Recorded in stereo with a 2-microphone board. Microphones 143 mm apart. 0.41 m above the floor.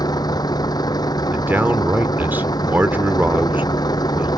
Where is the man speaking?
15° right (ahead or behind).